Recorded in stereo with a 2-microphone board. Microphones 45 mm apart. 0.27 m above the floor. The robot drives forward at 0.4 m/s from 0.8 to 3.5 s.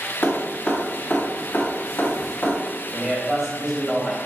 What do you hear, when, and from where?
0.2 s dripping: 50° left (ahead or behind), 1.6 m
2.9 s a man speaking: 15° right (ahead or behind), 1.3 m